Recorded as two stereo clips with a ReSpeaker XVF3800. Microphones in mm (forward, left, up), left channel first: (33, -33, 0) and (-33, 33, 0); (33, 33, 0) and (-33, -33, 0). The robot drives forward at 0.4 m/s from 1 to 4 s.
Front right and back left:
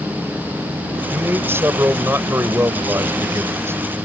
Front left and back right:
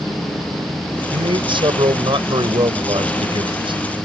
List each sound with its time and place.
1.1 s a man speaking: 160° right